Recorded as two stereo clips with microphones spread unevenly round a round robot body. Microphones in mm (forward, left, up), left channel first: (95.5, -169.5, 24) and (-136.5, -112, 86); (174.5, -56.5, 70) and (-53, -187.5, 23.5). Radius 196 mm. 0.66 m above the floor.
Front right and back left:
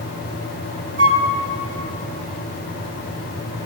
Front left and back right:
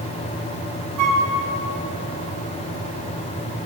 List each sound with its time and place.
1.0 s a flute: 160° right, 1.5 m